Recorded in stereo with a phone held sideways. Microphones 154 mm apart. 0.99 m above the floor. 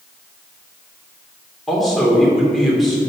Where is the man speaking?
Centre (ahead or behind), 2.5 m.